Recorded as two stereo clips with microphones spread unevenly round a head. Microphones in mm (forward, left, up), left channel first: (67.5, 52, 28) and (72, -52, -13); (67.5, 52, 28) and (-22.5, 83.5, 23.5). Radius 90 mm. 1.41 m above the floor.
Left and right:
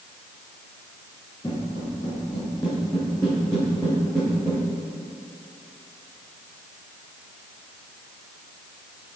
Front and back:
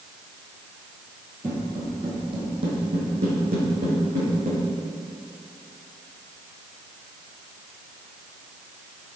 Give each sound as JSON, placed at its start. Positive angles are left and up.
{"t": 1.4, "sound": "footsteps", "azimuth_deg": 120, "distance_m": 1.8}